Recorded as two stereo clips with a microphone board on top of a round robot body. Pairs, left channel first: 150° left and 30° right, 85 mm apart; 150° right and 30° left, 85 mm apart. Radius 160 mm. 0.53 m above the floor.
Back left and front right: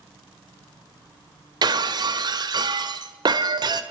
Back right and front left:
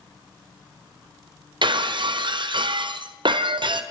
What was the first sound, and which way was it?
Breaking glass, 5° left.